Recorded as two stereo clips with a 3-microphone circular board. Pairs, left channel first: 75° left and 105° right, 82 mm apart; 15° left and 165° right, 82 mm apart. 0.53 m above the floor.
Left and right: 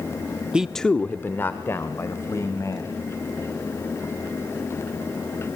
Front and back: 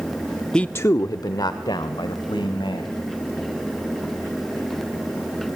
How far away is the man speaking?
About 0.6 m.